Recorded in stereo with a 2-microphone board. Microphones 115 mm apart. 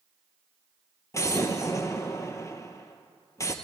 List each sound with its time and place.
1.1 s an explosion: 25° left (ahead or behind), 1.0 m